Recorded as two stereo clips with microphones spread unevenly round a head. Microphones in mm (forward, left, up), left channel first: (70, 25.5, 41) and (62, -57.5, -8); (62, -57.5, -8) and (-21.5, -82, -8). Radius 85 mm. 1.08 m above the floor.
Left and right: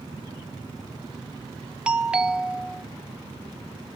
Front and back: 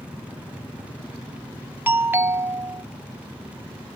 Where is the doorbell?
110° right, 0.6 m.